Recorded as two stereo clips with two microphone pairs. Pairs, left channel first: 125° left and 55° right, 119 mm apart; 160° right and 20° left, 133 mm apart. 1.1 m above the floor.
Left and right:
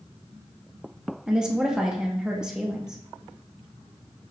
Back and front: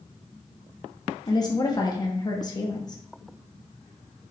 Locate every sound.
1.3 s a woman speaking: 140° right, 0.8 m